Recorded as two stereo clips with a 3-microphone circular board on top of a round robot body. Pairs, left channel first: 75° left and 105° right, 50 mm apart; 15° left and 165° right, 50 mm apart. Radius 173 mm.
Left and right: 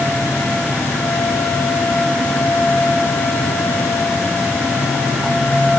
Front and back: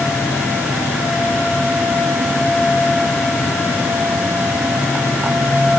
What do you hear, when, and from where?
Only background noise.